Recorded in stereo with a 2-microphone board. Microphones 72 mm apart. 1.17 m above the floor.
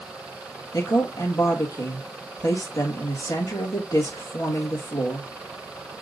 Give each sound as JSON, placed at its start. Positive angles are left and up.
{"t": 0.7, "sound": "a woman speaking", "side_deg": 50, "distance_m": 1.8}